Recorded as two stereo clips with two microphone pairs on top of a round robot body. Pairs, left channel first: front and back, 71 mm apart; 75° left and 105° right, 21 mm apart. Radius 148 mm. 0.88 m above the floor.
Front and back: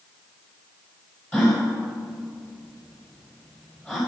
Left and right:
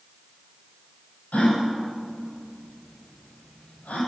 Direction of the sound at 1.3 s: 75° left.